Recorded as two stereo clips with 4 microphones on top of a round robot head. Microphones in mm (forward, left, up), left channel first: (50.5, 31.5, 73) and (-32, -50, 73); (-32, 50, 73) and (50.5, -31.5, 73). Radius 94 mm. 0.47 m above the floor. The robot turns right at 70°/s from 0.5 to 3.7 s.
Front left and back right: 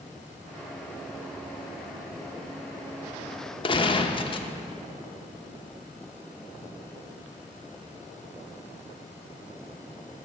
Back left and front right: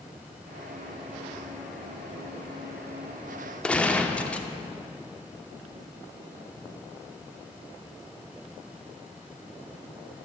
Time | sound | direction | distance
3.6 | a gunshot | 55° left | 0.8 m